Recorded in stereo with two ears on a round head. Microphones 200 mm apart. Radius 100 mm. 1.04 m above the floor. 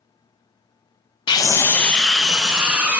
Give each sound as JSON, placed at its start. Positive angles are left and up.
{"t": 1.3, "sound": "a scream", "side_deg": 20, "distance_m": 0.6}